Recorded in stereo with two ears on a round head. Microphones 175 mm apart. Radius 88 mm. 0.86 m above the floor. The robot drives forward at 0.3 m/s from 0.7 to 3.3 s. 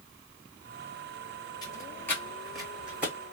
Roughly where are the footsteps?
Left.